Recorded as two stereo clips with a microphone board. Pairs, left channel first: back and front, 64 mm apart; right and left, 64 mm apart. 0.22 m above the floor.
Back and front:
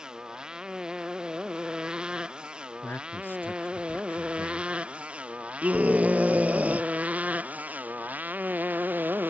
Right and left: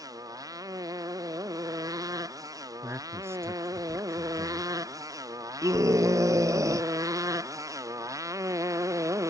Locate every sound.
0.0 s a motorcycle: 75° left; by 9.3 s 60° left
2.8 s a man speaking: 125° left
5.6 s a scream: 65° left